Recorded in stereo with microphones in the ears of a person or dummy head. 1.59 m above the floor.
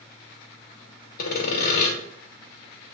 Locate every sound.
1.2 s sawing: 50° left (ahead or behind), 1.1 m